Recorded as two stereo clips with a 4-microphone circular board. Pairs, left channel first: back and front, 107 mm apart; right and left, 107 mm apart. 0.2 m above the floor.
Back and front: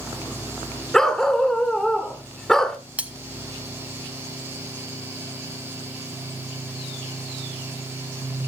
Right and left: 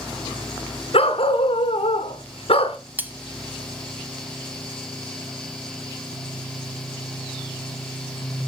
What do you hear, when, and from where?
0.9 s a dog barking: 95° right, 1.1 m
3.0 s cutlery clinking: 55° left, 0.8 m